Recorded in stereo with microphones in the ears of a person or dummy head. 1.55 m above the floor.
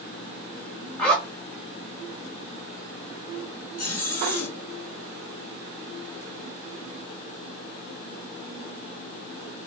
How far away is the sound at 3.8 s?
About 1.1 m.